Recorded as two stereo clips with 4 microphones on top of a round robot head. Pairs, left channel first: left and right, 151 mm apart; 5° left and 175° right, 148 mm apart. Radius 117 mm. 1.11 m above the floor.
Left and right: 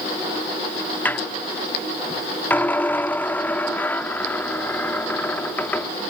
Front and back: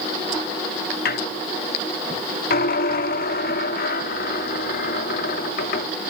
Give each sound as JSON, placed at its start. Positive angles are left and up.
{"t": 1.1, "sound": "a squeak", "azimuth_deg": 10}